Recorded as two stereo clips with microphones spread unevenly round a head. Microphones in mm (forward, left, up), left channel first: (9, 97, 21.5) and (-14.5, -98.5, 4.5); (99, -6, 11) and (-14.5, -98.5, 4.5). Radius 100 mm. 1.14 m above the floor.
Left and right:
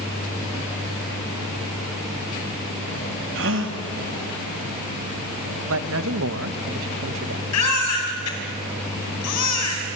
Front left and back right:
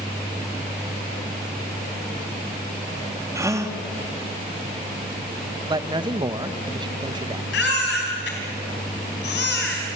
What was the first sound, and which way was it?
A gasp, 70° right.